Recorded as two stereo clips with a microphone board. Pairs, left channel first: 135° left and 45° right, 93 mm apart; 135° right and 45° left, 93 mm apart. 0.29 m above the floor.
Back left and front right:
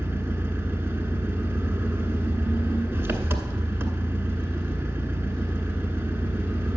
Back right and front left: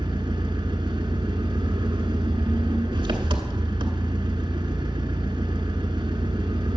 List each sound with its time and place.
0.0 s an engine running: 20° left, 1.2 m